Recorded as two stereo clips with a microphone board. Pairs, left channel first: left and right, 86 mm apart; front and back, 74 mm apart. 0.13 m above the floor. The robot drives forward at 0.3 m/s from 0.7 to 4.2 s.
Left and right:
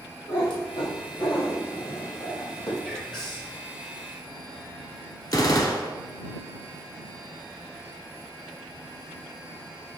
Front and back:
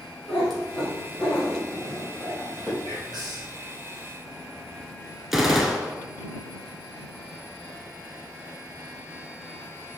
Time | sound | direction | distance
0.3 | a cat meowing | 90° left | 2.0 m
2.8 | whispering | 170° left | 2 m
5.3 | a gunshot | 95° left | 0.6 m